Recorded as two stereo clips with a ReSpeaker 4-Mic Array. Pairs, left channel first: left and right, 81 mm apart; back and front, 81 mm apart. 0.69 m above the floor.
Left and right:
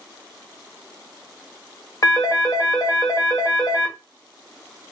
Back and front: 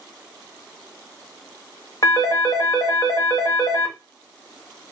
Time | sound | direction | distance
2.0 | a phone ringing | 130° left | 0.8 m